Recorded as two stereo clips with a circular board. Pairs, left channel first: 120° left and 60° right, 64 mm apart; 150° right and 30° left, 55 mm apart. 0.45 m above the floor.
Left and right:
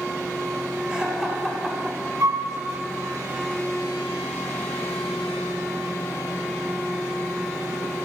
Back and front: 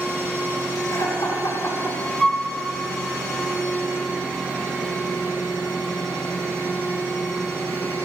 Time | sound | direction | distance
0.9 | laughter | 135° right | 4 m
2.2 | a flute | 70° right | 2.0 m